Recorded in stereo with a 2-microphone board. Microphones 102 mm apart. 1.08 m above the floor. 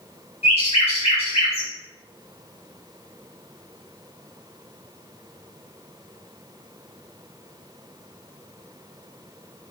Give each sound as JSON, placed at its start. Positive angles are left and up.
{"t": 0.4, "sound": "a bird", "side_deg": 80, "distance_m": 1.2}